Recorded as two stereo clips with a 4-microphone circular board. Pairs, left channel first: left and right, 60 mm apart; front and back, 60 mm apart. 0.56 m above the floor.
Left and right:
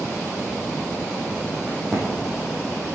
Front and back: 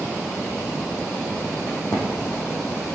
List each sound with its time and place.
1.7 s a crack: 5° left, 4.5 m